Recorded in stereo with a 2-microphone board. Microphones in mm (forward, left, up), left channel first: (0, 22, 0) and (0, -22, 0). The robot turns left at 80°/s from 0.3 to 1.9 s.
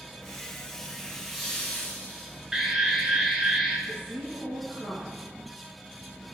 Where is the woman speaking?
35° right (ahead or behind), 2.5 m.